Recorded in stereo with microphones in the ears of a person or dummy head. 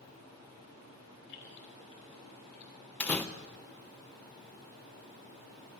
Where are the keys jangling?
65° left (ahead or behind), 2.5 m; by 2.7 s 55° left (ahead or behind), 3 m.